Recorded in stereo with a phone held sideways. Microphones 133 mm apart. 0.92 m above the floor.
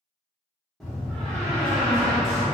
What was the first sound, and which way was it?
A door slam, centre (ahead or behind).